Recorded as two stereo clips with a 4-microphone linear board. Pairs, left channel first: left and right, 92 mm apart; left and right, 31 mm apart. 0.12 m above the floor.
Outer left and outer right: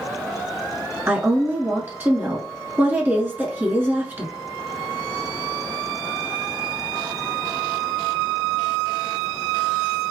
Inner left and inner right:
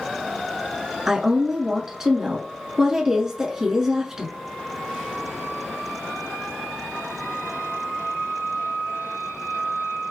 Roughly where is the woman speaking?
Right.